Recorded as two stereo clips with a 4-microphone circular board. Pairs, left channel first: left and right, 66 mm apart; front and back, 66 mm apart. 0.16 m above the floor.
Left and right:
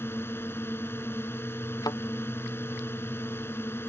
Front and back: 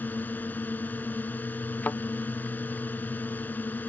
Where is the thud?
65° left.